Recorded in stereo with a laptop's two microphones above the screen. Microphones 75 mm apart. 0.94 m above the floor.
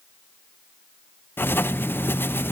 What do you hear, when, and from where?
1.4 s writing: 30° left (ahead or behind), 0.6 m